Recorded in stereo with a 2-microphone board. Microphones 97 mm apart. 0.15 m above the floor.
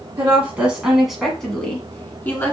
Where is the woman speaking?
20° right (ahead or behind), 1.5 m; by 2.5 s 25° left (ahead or behind), 1.7 m.